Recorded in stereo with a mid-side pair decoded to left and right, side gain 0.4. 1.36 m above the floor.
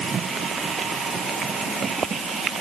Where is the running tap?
No running tap in this recording.